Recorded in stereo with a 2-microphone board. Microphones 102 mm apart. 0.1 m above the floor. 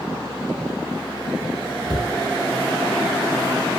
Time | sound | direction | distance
1.9 | a cupboard door | 40° left (ahead or behind) | 1.3 m